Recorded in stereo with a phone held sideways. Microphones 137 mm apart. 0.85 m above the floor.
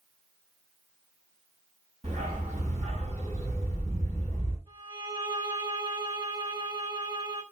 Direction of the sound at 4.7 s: 30° right (ahead or behind).